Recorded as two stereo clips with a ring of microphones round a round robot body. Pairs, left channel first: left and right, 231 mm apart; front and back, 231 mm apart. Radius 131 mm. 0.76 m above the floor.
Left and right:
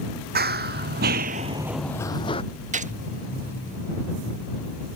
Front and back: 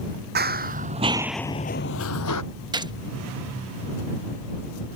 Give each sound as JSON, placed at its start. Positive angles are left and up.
{"t": 0.3, "sound": "running footsteps", "azimuth_deg": -135}
{"t": 2.7, "sound": "a gunshot", "azimuth_deg": -120}